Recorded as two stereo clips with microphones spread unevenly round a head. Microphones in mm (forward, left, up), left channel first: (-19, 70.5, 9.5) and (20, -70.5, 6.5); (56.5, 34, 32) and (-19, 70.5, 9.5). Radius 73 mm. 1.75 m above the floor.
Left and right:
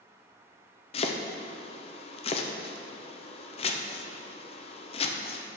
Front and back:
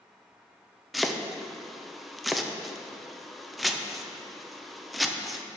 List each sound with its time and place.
0.9 s chopping: 55° left, 0.7 m